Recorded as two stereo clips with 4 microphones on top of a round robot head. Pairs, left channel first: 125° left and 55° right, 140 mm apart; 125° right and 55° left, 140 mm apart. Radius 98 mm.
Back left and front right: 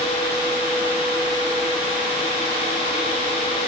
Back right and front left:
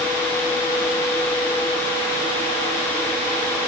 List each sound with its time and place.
Only background noise.